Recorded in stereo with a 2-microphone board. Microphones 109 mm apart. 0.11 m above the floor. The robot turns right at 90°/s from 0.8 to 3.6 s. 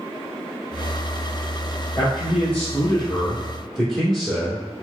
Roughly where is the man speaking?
Ahead left.